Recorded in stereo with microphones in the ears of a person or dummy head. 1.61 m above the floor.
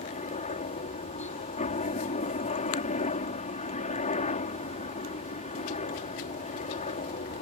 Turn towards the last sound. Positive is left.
turn(degrees=30)  # may be behind; listen again after turning